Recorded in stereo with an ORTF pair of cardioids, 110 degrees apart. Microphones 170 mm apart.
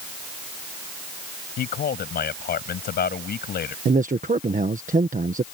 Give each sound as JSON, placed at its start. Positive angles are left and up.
{"t": 1.6, "sound": "a man speaking", "azimuth_deg": 65}
{"t": 3.9, "sound": "a man speaking", "azimuth_deg": -45}